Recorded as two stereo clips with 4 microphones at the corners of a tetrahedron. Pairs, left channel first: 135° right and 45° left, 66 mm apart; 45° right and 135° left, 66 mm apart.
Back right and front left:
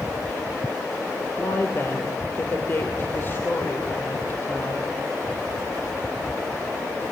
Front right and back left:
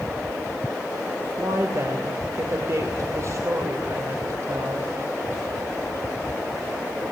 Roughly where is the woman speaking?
Behind.